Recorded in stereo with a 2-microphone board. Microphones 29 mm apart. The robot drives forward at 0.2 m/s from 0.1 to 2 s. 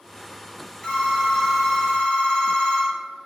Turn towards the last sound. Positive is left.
turn(degrees=40)  # may be behind; listen again after turning